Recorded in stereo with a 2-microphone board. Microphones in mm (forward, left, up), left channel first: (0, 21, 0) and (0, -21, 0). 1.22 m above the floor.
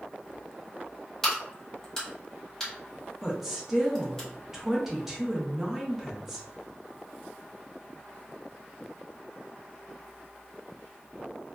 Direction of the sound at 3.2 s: 10° right (ahead or behind).